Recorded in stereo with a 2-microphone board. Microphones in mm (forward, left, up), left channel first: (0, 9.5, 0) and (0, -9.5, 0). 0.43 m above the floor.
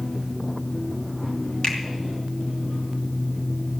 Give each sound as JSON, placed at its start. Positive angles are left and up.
{"t": 1.6, "sound": "a finger snap", "side_deg": 40, "distance_m": 3.0}